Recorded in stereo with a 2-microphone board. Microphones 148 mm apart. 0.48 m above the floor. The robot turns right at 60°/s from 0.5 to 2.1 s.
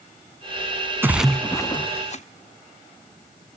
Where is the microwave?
No microwave in this recording.